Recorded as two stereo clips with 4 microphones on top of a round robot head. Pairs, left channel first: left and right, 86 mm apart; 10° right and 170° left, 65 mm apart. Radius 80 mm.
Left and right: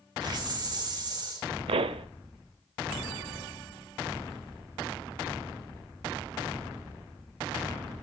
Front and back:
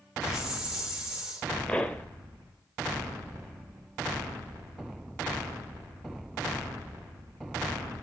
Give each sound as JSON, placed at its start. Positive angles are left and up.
{"t": 0.2, "sound": "a hiss", "azimuth_deg": -105, "distance_m": 2.0}
{"t": 1.7, "sound": "a pop", "azimuth_deg": -85, "distance_m": 0.6}